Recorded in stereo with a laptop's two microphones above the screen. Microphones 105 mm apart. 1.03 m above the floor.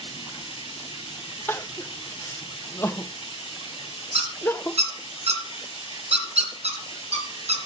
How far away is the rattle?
No rattle in this recording.